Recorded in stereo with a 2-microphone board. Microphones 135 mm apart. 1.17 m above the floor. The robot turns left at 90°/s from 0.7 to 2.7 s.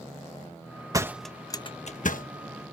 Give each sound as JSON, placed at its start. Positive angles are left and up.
{"t": 0.9, "sound": "a door slam", "side_deg": -25}